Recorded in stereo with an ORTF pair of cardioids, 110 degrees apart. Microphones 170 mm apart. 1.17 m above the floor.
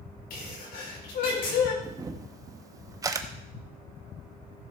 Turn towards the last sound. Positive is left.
turn(degrees=-25)